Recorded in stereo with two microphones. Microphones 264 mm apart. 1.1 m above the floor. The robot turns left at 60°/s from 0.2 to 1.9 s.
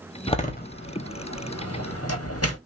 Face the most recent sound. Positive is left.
turn(degrees=65)  # may be behind; listen again after turning